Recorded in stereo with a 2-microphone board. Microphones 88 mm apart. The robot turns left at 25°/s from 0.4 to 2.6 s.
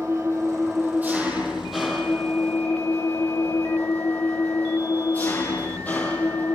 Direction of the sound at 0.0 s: 145° right.